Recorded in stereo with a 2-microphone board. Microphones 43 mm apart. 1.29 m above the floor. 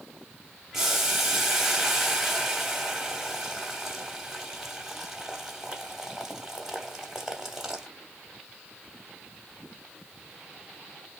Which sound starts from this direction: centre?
Boiling, at 0.7 s.